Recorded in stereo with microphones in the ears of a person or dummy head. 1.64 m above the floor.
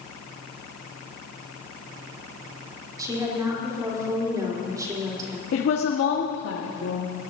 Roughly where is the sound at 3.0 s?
Right.